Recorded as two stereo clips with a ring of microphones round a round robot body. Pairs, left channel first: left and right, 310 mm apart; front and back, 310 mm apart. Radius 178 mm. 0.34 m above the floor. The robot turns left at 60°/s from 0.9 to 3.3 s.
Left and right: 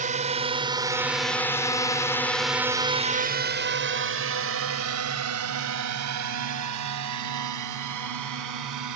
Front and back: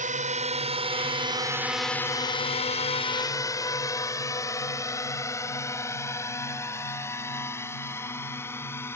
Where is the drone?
135° right; by 9.0 s 80° right.